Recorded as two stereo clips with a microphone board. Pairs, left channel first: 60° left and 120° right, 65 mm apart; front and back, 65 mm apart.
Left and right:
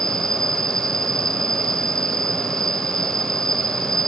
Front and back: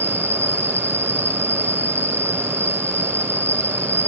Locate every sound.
0.0 s an insect: 10° right, 0.7 m